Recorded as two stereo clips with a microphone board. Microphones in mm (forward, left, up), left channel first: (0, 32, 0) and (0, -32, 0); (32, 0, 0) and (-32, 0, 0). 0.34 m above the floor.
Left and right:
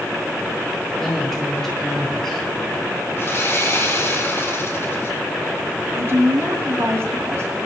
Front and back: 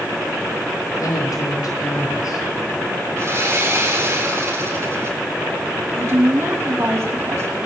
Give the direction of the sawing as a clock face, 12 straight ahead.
7 o'clock.